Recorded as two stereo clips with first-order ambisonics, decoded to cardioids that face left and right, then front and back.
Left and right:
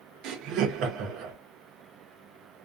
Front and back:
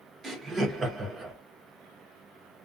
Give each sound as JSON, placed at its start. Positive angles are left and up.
{"t": 0.2, "sound": "laughter", "azimuth_deg": -110, "distance_m": 0.6}